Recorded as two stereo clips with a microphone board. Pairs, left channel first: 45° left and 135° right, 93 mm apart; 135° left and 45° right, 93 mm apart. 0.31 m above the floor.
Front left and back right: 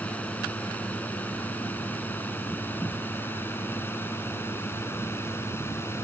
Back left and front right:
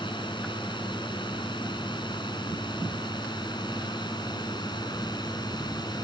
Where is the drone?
120° left; by 6.0 s 105° left.